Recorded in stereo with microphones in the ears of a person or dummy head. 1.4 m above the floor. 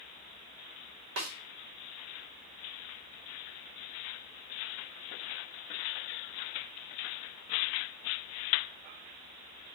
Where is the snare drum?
80° right, 1.7 m.